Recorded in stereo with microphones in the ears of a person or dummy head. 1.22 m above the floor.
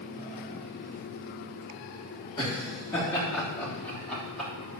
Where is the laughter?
25° left (ahead or behind), 3 m; by 4.5 s 5° left (ahead or behind), 3 m.